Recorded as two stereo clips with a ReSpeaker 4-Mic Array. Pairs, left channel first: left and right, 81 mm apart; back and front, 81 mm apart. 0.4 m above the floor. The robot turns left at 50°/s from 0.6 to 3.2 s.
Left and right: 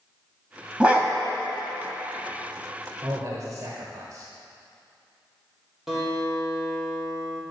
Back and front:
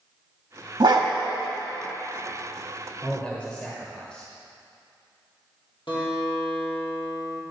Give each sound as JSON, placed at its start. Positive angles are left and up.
{"t": 0.8, "sound": "a dog barking", "azimuth_deg": -15, "distance_m": 0.9}
{"t": 3.0, "sound": "a man speaking", "azimuth_deg": -95, "distance_m": 1.1}
{"t": 5.9, "sound": "a guitar", "azimuth_deg": -175, "distance_m": 3.0}